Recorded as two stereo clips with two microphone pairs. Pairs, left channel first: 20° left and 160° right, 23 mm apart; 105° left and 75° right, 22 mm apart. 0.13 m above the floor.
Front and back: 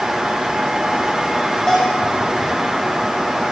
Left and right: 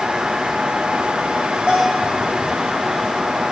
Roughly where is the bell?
Ahead right.